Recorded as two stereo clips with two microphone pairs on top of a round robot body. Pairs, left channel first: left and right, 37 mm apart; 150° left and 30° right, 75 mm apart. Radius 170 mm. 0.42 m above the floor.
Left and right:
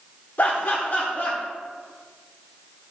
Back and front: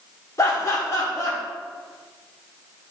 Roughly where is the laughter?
Left.